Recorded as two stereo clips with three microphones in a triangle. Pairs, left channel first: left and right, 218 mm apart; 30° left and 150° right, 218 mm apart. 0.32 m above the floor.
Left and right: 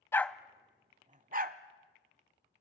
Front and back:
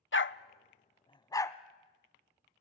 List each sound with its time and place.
0.1 s a dog barking: 15° left, 0.5 m; by 1.6 s 50° right, 1.0 m